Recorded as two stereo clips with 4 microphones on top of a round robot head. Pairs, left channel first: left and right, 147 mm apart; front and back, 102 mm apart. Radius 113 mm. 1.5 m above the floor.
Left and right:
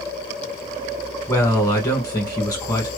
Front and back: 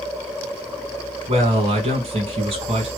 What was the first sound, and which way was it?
A man speaking, 160° left.